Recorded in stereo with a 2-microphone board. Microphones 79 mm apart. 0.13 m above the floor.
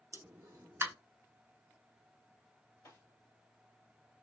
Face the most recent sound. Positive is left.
turn(degrees=55)  # may be behind; listen again after turning